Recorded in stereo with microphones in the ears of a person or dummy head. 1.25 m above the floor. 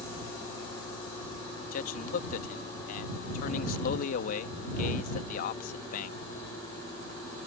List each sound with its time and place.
1.7 s a man speaking: 50° left (ahead or behind)